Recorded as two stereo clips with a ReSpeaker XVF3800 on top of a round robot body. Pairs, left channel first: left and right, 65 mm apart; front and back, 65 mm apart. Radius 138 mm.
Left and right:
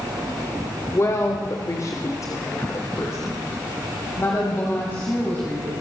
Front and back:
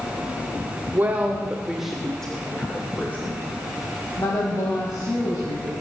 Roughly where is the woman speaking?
Behind left.